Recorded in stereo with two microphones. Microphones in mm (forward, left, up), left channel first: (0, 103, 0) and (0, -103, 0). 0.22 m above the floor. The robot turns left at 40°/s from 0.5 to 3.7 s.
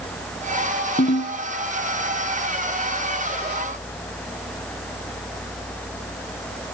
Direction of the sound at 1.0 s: 40° left (ahead or behind).